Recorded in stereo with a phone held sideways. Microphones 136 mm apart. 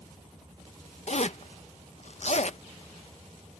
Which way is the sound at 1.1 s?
55° left (ahead or behind).